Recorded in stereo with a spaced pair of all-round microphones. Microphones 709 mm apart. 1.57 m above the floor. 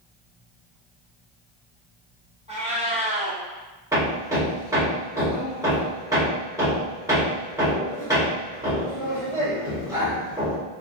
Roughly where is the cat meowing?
Centre.